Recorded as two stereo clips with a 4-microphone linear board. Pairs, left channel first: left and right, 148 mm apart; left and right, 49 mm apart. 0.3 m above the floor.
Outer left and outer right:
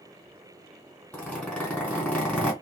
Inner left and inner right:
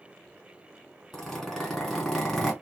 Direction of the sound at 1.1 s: 5° left (ahead or behind).